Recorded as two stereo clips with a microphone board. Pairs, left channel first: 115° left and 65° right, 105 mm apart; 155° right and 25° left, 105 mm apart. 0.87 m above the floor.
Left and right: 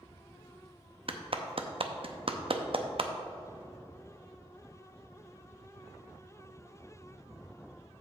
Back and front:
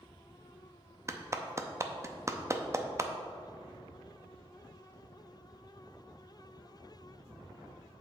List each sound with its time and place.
1.1 s a clap: 40° right, 0.6 m